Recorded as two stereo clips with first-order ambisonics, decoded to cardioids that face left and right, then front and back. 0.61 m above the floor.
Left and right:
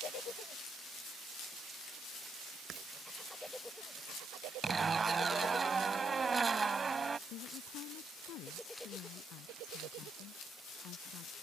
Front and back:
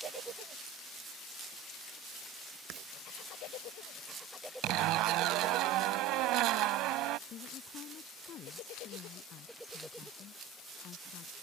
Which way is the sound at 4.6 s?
160° right.